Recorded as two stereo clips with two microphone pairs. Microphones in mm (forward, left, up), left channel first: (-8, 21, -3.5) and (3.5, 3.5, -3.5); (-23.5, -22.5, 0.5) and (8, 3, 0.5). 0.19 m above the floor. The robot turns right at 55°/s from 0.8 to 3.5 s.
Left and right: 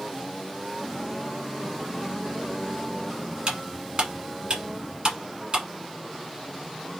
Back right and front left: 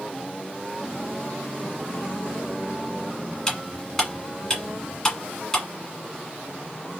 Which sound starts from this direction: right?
Cutlery clinking, at 3.5 s.